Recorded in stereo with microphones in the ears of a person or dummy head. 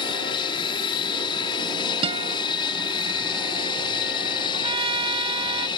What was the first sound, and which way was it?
An aircraft, 30° left (ahead or behind).